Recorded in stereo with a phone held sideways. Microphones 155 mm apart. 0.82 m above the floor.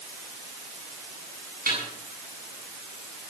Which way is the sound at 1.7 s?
80° right.